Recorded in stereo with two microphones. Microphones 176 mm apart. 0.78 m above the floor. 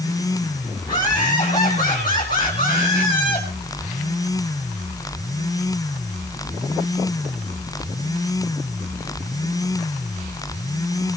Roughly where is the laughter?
Left.